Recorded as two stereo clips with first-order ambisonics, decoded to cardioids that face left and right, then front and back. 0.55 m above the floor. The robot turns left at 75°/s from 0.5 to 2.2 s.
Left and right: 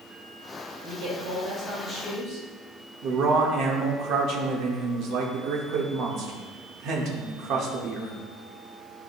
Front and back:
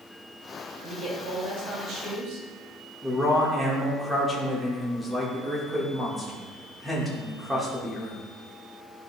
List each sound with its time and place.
0.8 s a man speaking: 105° right, 2 m; by 2.5 s 150° left, 2 m
3.0 s a man speaking: 100° right, 1.3 m